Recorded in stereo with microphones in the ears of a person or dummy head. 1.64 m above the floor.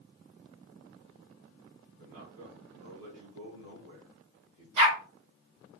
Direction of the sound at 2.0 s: 80° right.